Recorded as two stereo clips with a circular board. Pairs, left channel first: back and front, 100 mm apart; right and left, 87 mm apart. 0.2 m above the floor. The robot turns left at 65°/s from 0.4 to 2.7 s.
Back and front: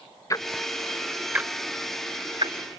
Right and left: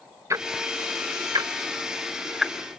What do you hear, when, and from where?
0.3 s ticking: 135° left; by 2.8 s 15° right